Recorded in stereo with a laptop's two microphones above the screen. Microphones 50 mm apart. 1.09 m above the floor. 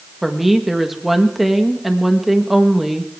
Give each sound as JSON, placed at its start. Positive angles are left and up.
{"t": 0.2, "sound": "a woman speaking", "side_deg": -5, "distance_m": 1.3}